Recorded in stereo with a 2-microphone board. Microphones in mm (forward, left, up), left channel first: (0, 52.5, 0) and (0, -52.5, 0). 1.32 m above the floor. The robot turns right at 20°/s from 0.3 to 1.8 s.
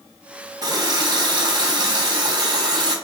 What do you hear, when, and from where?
0.6 s a running tap: 35° right (ahead or behind), 0.6 m; by 3.0 s 40° right (ahead or behind), 0.6 m